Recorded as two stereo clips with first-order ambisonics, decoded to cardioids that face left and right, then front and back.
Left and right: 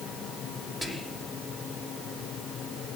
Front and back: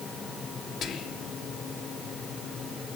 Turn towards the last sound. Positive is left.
turn(degrees=5)